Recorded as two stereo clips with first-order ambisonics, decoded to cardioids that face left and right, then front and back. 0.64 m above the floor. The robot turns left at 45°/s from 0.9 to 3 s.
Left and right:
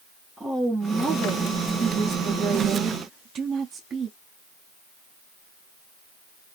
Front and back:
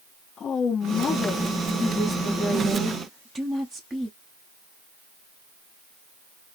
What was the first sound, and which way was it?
A woman speaking, 5° right.